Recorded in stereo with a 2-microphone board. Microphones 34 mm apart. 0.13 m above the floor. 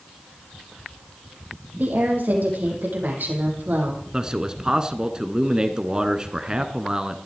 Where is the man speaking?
20° right (ahead or behind), 1.1 m.